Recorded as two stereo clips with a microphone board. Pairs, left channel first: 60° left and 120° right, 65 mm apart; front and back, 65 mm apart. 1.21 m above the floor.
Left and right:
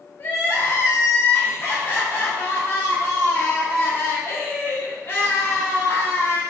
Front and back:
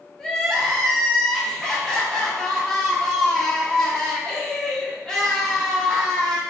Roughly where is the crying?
Left.